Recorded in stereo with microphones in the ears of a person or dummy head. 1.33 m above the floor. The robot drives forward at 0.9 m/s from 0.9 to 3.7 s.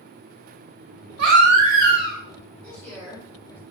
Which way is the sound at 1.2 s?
70° right (ahead or behind).